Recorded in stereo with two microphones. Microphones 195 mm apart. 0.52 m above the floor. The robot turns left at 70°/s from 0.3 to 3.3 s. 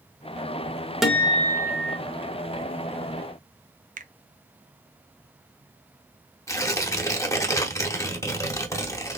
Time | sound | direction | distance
1.0 | a guitar | straight behind | 0.9 m
4.0 | a finger snap | 40° right (ahead or behind) | 0.5 m
6.5 | tearing paper | 15° left (ahead or behind) | 0.9 m